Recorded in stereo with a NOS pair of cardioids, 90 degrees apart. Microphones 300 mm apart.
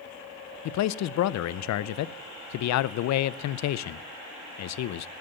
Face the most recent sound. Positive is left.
turn(degrees=65)